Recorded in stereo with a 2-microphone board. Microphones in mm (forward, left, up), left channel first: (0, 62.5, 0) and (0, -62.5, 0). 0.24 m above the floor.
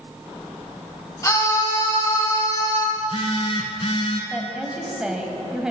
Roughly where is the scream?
Left.